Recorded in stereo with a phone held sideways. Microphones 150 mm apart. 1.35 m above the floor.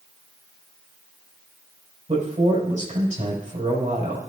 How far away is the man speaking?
About 5.5 m.